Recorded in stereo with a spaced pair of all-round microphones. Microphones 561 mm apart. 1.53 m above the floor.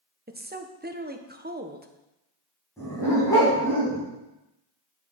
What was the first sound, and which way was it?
A woman speaking, 15° right (ahead or behind).